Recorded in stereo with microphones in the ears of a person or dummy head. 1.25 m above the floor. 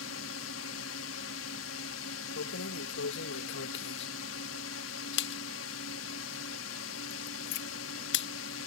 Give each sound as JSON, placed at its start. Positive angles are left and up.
{"t": 0.0, "sound": "a drone", "side_deg": 75}
{"t": 2.4, "sound": "keys jangling", "side_deg": 65}